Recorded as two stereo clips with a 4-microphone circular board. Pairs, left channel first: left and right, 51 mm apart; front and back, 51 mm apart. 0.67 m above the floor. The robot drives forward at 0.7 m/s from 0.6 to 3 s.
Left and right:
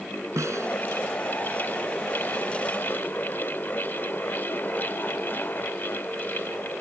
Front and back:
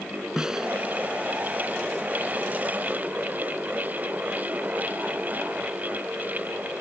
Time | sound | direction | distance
0.4 | a snare drum | 105° right | ?